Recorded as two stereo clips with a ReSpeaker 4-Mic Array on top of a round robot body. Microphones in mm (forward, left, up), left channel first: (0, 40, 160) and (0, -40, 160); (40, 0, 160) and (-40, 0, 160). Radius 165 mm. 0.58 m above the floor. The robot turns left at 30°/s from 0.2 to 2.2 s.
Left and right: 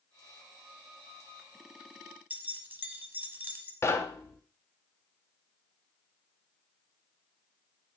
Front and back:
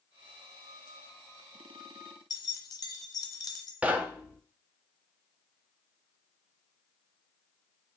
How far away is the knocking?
About 0.7 m.